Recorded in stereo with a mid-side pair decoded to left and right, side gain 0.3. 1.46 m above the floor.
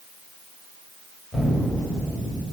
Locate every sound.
1.3 s an explosion: 25° left, 9 m